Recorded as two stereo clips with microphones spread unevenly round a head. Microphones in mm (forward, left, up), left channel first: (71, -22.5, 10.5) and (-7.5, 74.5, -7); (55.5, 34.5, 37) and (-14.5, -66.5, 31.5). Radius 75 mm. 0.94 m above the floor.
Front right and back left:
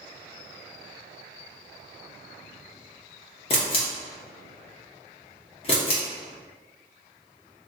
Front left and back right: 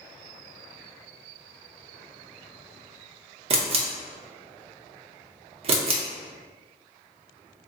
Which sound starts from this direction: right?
A camera shutter, at 3.5 s.